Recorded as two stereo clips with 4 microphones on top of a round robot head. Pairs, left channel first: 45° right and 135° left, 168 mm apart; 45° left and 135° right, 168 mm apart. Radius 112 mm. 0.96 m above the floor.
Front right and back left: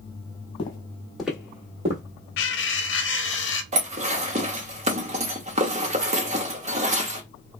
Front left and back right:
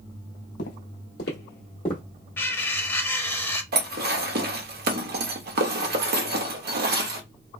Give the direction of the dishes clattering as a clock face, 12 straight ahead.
6 o'clock.